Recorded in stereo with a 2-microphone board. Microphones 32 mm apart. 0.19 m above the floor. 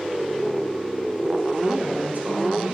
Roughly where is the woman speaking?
Right.